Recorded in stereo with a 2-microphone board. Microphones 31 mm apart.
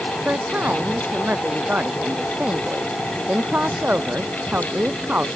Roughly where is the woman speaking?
Right.